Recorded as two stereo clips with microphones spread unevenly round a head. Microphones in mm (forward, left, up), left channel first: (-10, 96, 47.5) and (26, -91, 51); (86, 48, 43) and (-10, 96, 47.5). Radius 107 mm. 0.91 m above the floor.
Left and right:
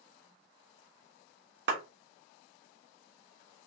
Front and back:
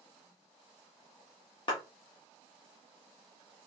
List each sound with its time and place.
1.7 s a clap: 70° right, 1.4 m